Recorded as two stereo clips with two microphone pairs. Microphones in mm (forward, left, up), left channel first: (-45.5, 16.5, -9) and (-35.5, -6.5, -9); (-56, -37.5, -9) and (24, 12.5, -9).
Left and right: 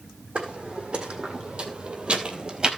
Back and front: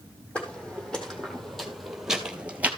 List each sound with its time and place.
0.3 s footsteps: 70° right, 3 m; by 2.7 s 35° right, 1.5 m